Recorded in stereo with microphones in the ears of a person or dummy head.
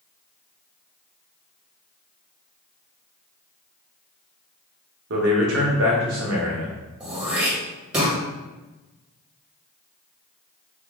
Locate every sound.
5.1 s a man speaking: 65° right (ahead or behind), 1.3 m
7.0 s throat clearing: 10° right (ahead or behind), 1.7 m